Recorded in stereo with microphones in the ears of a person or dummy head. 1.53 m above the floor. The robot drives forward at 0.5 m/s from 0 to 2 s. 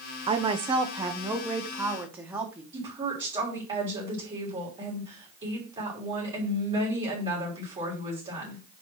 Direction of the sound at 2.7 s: 25° right (ahead or behind).